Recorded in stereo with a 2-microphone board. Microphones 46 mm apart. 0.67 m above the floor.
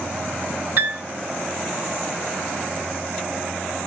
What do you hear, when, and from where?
0.8 s a piano: 60° right (ahead or behind), 1.5 m